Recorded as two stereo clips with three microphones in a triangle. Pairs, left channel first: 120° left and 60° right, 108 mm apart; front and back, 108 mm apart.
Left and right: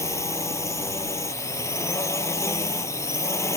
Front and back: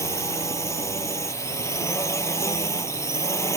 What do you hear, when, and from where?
0.0 s a drone: 60° left